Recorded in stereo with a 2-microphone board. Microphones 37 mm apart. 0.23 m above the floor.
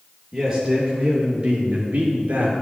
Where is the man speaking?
10° right (ahead or behind), 4.5 m; by 2.5 s 45° right (ahead or behind), 3.5 m.